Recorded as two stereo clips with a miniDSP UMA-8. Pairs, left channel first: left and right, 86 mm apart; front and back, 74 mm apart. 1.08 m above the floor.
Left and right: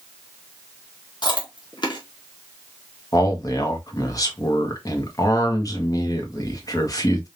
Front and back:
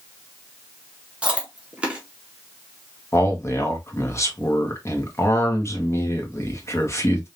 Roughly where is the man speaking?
Ahead left.